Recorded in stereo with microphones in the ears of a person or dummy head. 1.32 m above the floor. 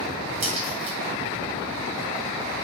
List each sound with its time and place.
0.4 s a crack: 45° right (ahead or behind), 1.7 m